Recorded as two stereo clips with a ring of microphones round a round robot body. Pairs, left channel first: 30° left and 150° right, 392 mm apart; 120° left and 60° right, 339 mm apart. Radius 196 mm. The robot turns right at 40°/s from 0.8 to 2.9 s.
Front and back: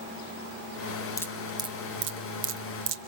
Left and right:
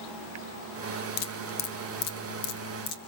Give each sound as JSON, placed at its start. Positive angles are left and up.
{"t": 1.2, "sound": "dripping", "azimuth_deg": 110, "distance_m": 1.7}